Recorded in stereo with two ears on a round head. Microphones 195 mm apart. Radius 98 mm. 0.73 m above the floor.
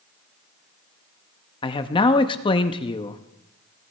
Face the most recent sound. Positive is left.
turn(degrees=25)  # may be behind; listen again after turning